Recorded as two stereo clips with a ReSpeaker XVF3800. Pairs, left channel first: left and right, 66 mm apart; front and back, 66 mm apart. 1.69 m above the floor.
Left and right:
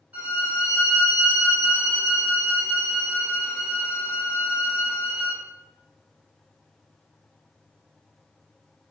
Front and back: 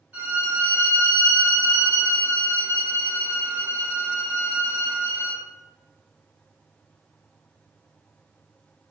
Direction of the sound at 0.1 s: 130° right.